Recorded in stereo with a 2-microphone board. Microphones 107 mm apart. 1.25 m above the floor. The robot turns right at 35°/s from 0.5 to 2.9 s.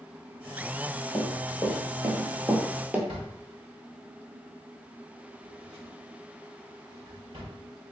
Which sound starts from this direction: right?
A drawer, at 3.1 s.